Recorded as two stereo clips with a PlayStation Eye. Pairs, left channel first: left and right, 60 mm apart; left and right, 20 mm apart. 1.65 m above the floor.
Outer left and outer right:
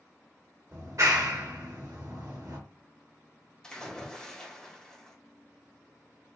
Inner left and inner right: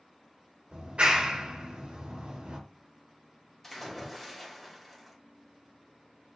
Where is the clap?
60° right (ahead or behind), 1.4 m.